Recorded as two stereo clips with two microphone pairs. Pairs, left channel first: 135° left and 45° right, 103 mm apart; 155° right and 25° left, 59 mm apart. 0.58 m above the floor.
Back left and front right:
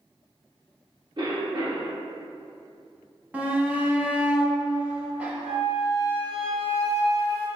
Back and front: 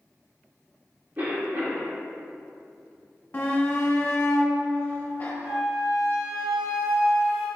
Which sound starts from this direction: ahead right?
A flute, at 5.4 s.